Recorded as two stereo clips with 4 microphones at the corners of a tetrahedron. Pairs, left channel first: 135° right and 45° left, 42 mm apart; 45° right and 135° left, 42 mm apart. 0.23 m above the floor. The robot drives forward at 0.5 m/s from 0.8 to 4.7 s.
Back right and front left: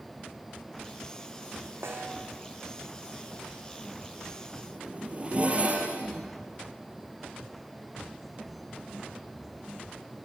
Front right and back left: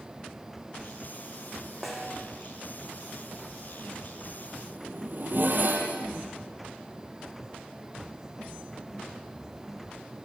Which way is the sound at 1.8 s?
50° left.